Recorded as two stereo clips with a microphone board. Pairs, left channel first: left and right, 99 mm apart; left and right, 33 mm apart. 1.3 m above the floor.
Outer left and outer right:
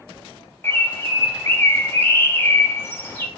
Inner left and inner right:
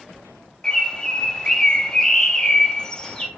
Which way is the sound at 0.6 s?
25° left (ahead or behind).